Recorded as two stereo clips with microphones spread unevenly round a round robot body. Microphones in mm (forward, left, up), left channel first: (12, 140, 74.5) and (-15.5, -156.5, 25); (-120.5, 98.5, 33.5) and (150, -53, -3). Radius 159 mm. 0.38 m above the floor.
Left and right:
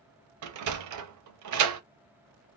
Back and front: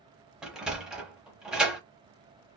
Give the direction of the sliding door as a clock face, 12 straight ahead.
4 o'clock.